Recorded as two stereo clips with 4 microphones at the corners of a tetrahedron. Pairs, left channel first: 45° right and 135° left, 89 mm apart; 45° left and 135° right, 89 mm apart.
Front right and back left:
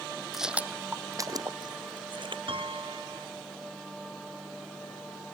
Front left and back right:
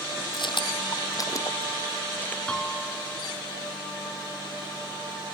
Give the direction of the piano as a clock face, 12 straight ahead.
8 o'clock.